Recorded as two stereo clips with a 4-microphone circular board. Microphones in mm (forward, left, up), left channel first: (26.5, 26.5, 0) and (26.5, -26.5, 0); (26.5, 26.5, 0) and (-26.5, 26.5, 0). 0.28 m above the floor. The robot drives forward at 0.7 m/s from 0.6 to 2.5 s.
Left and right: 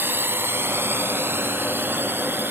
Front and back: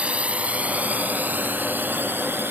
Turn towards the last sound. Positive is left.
turn(degrees=-135)